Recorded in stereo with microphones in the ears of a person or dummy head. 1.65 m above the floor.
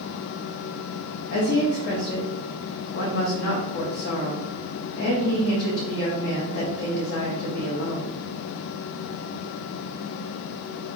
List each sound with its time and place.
1.3 s a woman speaking: 50° left (ahead or behind), 0.5 m